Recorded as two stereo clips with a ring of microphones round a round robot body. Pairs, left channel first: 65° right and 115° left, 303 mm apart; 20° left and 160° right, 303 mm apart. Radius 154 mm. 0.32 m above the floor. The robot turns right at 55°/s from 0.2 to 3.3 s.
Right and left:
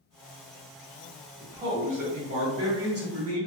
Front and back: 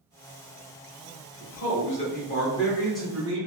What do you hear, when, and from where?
1.4 s a man speaking: 25° left, 1.2 m; by 3.5 s 130° left, 1.2 m